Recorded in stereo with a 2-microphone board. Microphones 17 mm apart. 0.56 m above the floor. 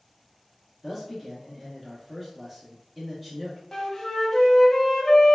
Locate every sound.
0.8 s a man speaking: 5° left (ahead or behind), 0.6 m
3.7 s a flute: 30° left (ahead or behind), 0.5 m